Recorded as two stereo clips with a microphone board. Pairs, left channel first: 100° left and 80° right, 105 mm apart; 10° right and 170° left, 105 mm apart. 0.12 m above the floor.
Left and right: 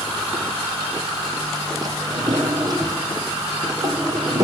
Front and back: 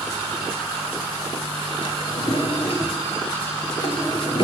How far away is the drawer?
About 1.5 m.